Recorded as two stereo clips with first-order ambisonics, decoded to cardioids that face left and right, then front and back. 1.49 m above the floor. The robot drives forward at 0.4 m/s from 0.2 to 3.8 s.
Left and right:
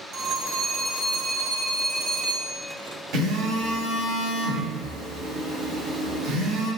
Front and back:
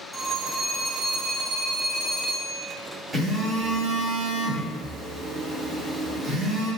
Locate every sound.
0.1 s a phone ringing: 90° right, 1.1 m; by 2.6 s 140° right, 1.5 m
3.1 s a phone buzzing: 110° right, 1.4 m; by 6.7 s 120° right, 1.5 m